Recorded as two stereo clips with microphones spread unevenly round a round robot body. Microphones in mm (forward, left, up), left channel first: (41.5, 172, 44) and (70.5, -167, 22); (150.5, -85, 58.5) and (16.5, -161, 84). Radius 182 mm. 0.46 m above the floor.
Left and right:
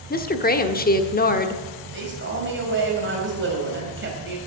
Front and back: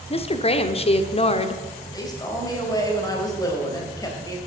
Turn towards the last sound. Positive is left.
turn(degrees=-30)